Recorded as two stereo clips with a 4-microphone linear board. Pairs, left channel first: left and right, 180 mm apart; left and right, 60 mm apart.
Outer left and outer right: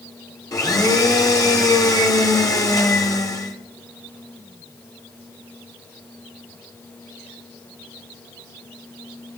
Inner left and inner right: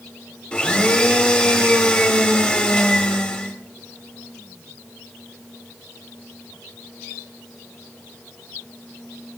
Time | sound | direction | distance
0.5 | a blender | 20° left (ahead or behind) | 1.7 m